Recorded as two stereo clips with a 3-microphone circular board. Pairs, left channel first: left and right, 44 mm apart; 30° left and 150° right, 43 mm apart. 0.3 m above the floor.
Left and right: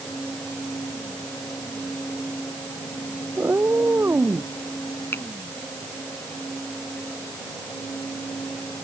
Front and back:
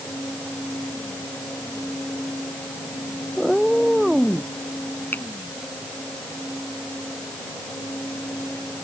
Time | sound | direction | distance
3.4 | a cat meowing | 60° right | ?
5.1 | a finger snap | 70° left | ?